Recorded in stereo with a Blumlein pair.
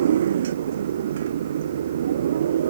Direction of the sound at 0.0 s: 65° right.